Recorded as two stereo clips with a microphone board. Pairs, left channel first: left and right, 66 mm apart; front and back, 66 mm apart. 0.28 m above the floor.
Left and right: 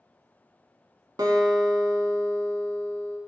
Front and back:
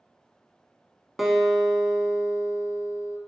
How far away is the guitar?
About 0.7 m.